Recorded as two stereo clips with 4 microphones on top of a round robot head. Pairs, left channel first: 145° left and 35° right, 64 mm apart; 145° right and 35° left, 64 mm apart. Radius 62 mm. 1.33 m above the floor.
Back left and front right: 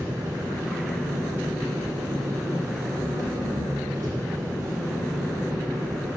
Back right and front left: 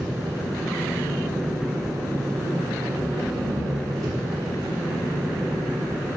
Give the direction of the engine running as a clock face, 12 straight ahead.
12 o'clock.